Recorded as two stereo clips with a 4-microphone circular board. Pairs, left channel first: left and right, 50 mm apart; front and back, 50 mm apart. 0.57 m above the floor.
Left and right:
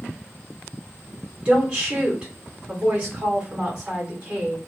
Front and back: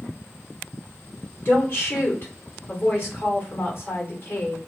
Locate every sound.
1.4 s a woman speaking: 30° right, 1.9 m